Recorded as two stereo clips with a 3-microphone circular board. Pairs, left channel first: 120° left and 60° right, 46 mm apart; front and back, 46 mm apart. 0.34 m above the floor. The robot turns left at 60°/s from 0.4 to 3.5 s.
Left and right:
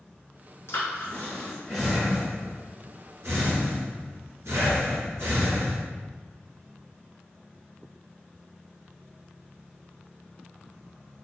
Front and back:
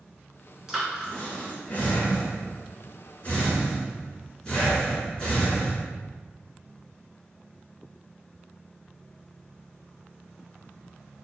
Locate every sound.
0.7 s breathing: 100° left, 1.6 m; by 5.8 s 70° right, 1.6 m